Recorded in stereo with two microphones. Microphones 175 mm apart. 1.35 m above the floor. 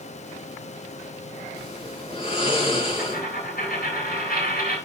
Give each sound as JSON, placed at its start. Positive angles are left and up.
{"t": 1.6, "sound": "snoring", "side_deg": 35, "distance_m": 7.0}
{"t": 3.0, "sound": "a dropped coin", "side_deg": 70, "distance_m": 7.5}